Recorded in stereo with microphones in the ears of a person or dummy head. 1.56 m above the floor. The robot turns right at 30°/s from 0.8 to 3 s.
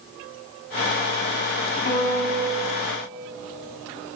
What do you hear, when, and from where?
1.9 s a piano: 40° left (ahead or behind), 1.7 m; by 2.6 s 55° left (ahead or behind), 1.7 m